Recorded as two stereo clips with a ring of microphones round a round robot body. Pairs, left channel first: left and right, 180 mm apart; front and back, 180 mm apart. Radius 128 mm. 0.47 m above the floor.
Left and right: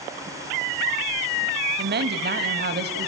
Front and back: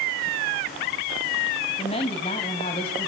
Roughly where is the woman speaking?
Ahead right.